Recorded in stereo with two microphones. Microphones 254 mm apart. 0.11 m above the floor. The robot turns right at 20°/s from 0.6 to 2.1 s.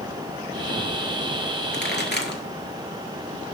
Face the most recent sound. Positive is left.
turn(degrees=45)  # may be behind; listen again after turning